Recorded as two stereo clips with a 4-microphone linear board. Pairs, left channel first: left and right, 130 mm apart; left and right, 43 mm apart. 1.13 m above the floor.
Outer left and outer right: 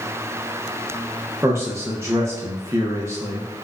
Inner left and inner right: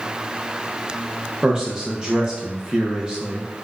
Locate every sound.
1.4 s a man speaking: 20° right (ahead or behind), 0.5 m